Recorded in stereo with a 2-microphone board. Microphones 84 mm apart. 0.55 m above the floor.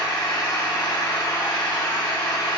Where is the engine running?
55° left (ahead or behind), 0.8 m.